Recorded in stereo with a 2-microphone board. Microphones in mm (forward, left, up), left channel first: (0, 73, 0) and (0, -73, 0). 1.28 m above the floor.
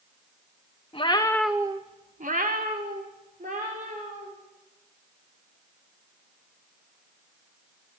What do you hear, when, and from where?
0.9 s a cat meowing: 40° left (ahead or behind), 0.9 m; by 4.3 s 70° right (ahead or behind), 3.5 m